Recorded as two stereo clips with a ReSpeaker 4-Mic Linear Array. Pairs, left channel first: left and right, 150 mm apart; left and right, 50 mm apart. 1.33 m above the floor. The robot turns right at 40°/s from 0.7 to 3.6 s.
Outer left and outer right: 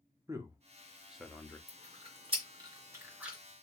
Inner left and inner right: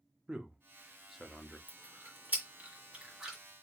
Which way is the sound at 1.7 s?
45° right (ahead or behind).